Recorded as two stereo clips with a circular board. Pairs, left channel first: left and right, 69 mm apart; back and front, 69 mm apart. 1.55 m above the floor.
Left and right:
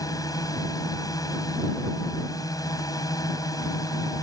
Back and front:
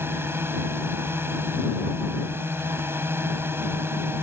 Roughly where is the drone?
Ahead left.